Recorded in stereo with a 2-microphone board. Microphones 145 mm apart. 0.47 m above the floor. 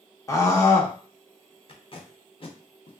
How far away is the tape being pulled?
About 0.7 m.